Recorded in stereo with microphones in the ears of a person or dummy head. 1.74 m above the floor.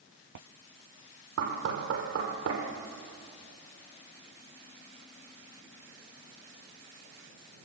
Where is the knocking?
70° right (ahead or behind), 5 m.